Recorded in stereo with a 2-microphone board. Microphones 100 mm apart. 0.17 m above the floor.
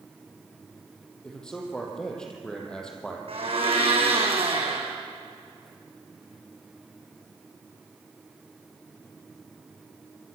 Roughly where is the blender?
Right.